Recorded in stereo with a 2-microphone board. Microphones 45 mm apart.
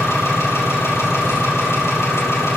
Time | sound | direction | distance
0.0 | an engine running | 65° left (ahead or behind) | 3 m